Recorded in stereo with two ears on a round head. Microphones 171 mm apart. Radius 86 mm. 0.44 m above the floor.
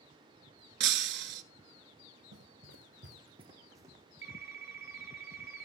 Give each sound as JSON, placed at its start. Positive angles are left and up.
{"t": 0.8, "sound": "breaking glass", "side_deg": -60, "distance_m": 0.6}
{"t": 2.3, "sound": "running footsteps", "side_deg": -70, "distance_m": 1.0}
{"t": 4.2, "sound": "a phone ringing", "side_deg": -15, "distance_m": 3.0}